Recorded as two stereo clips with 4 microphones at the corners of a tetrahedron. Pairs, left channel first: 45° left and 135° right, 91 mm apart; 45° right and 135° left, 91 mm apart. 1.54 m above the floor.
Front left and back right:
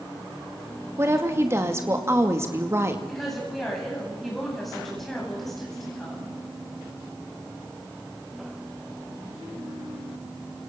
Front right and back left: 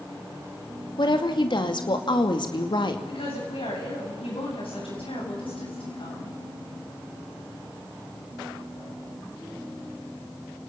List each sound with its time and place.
1.0 s a woman speaking: 75° right, 2.5 m
3.1 s a woman speaking: 45° right, 9.5 m